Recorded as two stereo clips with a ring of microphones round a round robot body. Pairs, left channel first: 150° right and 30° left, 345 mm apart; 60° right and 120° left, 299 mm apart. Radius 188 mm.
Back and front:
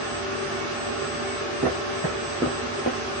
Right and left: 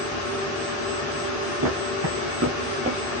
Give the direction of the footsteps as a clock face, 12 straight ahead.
9 o'clock.